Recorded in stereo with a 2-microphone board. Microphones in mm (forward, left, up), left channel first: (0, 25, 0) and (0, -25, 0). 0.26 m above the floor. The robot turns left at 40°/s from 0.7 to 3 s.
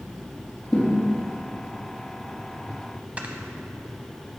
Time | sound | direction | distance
0.7 | a thud | 45° left (ahead or behind) | 3.5 m
3.2 | snoring | 25° right (ahead or behind) | 0.9 m